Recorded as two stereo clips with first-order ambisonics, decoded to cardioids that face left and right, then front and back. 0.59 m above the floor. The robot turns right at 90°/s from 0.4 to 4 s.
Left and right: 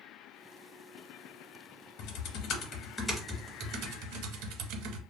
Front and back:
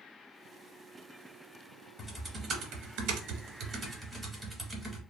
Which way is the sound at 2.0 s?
85° left.